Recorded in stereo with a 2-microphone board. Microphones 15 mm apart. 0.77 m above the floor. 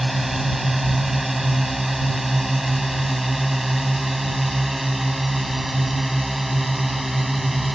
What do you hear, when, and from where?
0.0 s a drone: 15° right (ahead or behind)